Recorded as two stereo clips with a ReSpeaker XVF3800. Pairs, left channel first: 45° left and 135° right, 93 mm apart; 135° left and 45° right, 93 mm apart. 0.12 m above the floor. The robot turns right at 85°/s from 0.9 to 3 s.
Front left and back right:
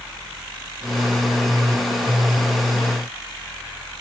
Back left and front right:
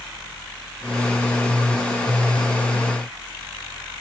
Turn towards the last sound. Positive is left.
No sound to turn to.